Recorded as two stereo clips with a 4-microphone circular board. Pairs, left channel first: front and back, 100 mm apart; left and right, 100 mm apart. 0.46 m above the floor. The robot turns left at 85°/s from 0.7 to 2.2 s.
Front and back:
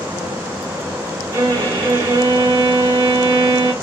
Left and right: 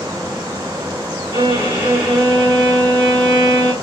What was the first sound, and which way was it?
A violin, 120° right.